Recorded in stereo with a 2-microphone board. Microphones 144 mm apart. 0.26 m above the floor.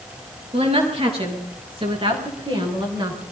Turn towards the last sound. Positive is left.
turn(degrees=-35)  # may be behind; listen again after turning